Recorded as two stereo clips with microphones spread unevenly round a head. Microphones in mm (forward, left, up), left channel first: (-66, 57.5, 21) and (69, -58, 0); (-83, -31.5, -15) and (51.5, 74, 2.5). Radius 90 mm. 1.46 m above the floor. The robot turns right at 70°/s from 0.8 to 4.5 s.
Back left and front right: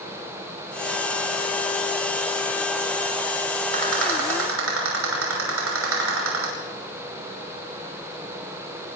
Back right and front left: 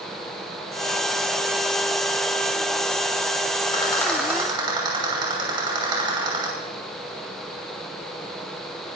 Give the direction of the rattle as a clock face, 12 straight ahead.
3 o'clock.